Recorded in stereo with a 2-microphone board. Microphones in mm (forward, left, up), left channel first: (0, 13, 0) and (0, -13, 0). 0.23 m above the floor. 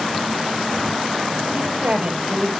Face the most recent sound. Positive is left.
turn(degrees=-65)  # may be behind; listen again after turning